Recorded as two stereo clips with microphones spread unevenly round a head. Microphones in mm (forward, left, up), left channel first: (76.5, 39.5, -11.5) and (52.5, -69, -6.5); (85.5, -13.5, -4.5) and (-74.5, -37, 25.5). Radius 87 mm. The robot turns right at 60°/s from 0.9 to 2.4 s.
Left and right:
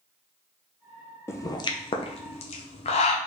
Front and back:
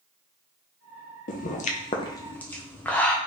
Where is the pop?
15° left, 0.7 m; by 3.2 s 80° left, 0.7 m.